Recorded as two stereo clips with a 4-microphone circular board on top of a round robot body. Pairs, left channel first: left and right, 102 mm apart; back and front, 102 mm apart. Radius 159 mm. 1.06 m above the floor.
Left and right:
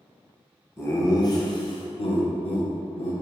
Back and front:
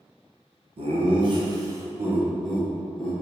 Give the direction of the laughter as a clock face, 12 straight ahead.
11 o'clock.